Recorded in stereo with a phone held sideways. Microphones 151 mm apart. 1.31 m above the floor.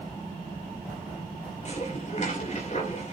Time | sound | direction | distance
1.6 | dishes clattering | 50° left (ahead or behind) | 3 m